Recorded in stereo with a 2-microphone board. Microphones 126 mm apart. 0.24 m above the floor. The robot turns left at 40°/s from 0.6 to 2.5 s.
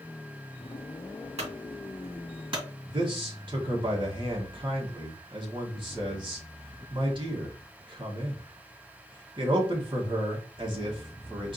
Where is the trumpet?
I don't hear a trumpet.